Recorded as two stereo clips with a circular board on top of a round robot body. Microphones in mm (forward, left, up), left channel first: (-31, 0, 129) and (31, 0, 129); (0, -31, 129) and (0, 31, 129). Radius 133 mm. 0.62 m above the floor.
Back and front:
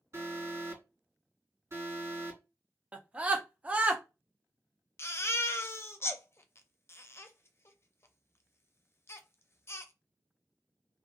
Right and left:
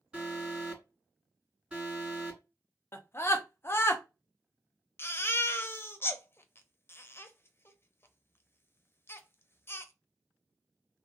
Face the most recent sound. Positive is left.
turn(degrees=-140)